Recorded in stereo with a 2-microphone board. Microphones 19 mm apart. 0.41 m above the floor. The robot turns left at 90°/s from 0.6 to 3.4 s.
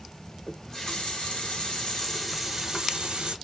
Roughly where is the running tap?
Behind.